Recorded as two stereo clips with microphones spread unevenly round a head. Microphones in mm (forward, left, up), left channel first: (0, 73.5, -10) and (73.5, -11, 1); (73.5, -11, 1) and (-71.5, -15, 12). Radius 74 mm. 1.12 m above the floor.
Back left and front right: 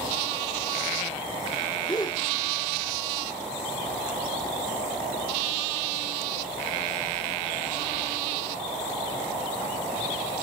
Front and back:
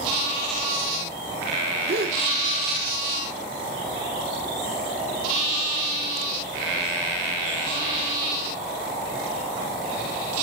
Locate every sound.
1.9 s a gasp: 165° right, 2 m